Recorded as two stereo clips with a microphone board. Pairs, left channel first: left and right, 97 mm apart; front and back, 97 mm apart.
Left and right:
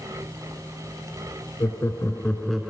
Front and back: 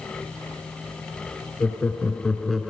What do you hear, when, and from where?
1.6 s laughter: 65° left, 2.0 m; by 2.7 s 120° right, 1.6 m